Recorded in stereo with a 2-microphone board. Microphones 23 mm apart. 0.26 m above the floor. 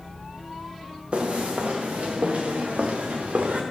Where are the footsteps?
55° right (ahead or behind), 3 m; by 3.6 s 85° right, 3 m.